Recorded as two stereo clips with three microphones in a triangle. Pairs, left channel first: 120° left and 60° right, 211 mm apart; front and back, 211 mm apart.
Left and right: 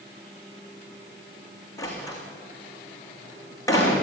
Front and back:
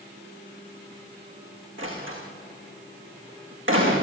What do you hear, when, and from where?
1.8 s a door slam: 165° right, 6 m